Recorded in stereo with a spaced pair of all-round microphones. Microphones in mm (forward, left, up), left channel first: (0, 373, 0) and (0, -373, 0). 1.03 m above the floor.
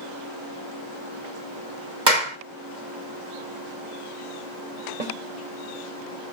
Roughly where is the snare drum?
Right.